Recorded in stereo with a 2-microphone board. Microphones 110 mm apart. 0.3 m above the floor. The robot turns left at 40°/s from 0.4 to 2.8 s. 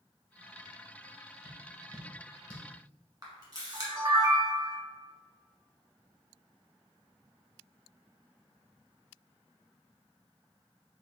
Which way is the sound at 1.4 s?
55° left (ahead or behind).